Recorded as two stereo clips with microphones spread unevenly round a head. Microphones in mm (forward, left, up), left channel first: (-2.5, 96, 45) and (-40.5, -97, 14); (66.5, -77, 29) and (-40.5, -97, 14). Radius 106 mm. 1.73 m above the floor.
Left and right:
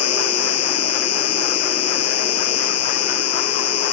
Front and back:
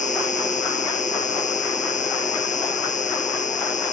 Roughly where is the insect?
Ahead left.